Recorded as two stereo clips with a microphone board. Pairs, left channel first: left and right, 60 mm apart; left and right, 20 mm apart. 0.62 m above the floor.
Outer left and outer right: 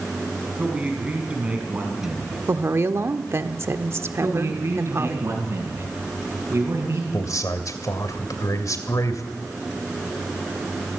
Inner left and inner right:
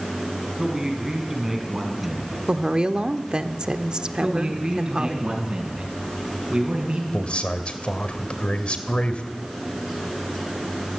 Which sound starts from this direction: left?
A man speaking, at 7.1 s.